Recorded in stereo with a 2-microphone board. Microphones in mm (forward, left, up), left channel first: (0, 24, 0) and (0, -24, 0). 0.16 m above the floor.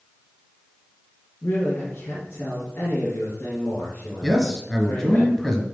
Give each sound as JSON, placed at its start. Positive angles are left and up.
{"t": 1.4, "sound": "a man speaking", "side_deg": 55, "distance_m": 3.0}
{"t": 4.2, "sound": "a man speaking", "side_deg": 10, "distance_m": 1.8}